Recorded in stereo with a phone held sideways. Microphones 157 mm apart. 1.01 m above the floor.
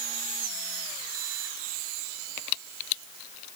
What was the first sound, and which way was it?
Only background noise.